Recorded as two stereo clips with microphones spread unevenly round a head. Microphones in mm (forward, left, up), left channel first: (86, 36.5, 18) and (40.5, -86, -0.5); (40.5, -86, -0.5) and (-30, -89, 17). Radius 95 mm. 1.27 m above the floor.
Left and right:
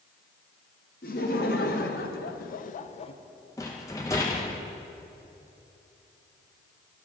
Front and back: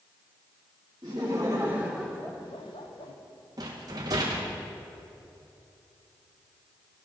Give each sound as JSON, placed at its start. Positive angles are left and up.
{"t": 1.0, "sound": "laughter", "azimuth_deg": 115, "distance_m": 1.2}
{"t": 3.6, "sound": "a rattle", "azimuth_deg": 140, "distance_m": 0.6}